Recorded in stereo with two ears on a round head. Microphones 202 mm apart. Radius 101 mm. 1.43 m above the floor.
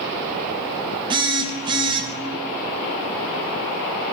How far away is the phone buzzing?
About 0.7 m.